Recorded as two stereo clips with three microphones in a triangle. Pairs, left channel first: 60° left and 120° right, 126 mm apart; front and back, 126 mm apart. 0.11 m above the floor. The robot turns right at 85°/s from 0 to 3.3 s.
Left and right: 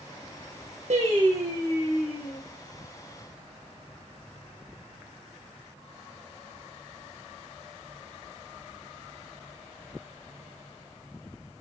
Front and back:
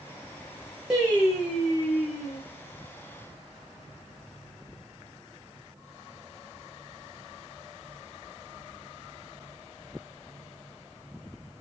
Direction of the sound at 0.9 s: 95° right.